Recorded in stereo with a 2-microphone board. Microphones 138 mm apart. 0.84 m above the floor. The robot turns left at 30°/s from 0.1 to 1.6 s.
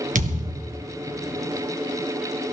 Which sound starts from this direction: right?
A thud, at 0.1 s.